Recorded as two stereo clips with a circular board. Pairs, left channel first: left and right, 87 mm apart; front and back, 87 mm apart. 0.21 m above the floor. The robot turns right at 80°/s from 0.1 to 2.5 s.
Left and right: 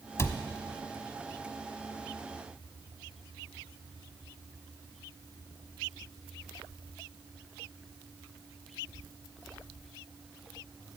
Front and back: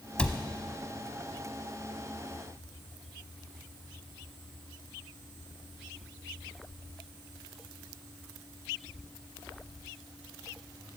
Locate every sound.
0.2 s a cupboard door: 70° left, 0.8 m; by 0.4 s 85° left, 0.8 m